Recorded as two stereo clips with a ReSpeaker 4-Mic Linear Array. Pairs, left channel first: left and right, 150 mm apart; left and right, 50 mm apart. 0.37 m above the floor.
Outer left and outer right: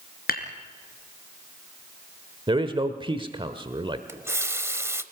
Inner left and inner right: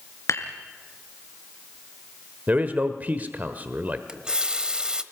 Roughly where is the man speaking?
Right.